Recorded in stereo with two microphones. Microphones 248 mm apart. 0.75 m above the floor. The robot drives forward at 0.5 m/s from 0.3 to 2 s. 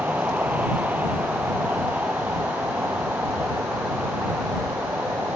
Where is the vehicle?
5° right (ahead or behind).